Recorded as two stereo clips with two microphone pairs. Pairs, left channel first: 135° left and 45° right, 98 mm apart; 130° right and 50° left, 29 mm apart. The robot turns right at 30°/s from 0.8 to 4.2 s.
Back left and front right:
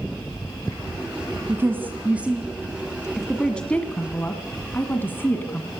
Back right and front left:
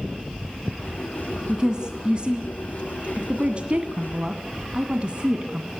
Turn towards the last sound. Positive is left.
turn(degrees=80)